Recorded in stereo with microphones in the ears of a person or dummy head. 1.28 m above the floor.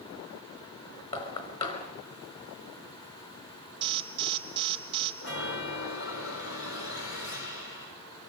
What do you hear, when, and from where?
1.1 s knocking: 30° left (ahead or behind), 5 m
3.8 s an alarm: 30° right (ahead or behind), 3 m
5.2 s a chime: 75° left (ahead or behind), 5 m